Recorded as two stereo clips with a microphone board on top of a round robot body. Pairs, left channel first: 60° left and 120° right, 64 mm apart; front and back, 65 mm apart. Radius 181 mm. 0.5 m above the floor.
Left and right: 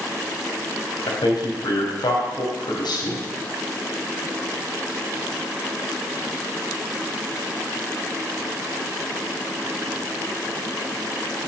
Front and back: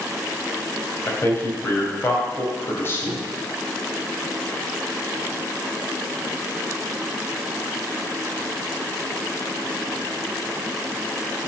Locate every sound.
1.1 s a man speaking: 60° left, 4 m